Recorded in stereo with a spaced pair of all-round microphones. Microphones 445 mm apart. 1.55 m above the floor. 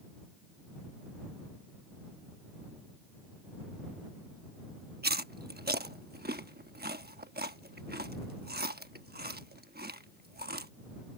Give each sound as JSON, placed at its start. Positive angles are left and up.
{"t": 5.0, "sound": "chewing", "side_deg": -20}